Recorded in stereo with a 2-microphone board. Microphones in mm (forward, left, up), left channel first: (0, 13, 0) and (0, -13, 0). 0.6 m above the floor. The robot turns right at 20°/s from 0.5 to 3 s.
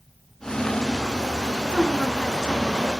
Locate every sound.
1.6 s a woman speaking: 40° left (ahead or behind), 6.5 m; by 3.0 s 15° left (ahead or behind), 6.5 m